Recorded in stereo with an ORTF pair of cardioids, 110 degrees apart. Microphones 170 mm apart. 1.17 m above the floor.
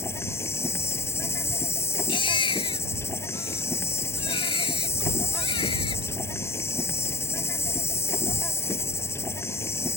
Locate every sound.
0.0 s an insect: 15° left
2.1 s a baby crying: 30° left